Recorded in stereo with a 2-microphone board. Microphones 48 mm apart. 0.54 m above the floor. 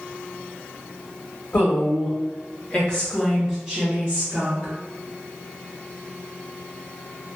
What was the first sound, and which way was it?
A woman speaking, 50° left (ahead or behind).